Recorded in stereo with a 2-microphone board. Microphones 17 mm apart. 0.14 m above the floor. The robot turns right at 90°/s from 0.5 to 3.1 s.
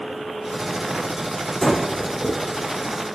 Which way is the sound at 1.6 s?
20° left (ahead or behind).